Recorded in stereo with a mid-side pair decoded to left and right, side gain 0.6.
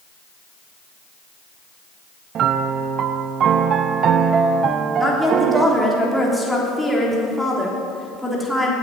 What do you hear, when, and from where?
2.4 s a piano: 50° right, 0.9 m
5.0 s a woman speaking: straight ahead, 3.5 m